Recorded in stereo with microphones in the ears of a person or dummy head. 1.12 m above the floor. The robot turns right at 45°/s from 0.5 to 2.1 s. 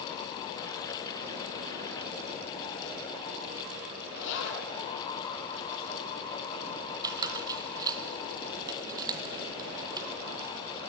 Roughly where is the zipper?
Left.